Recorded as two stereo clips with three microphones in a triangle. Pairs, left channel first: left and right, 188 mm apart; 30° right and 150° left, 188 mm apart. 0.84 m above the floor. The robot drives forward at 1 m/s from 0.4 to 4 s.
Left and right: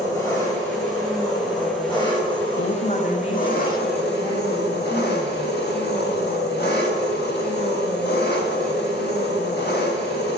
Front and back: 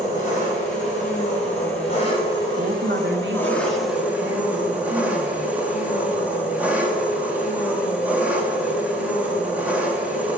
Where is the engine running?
15° left, 4.5 m; by 10.4 s 70° left, 1.4 m.